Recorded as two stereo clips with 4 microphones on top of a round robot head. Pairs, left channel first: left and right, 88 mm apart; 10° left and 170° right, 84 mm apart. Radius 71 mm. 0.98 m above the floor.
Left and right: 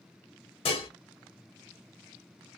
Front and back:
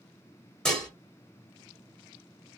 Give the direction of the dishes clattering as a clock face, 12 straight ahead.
9 o'clock.